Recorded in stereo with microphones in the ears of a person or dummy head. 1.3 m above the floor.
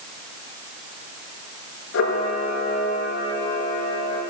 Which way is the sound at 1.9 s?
75° left (ahead or behind).